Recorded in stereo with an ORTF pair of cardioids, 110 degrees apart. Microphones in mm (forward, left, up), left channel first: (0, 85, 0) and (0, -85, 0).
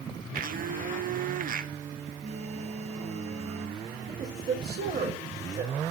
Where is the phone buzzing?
40° right, 1.2 m.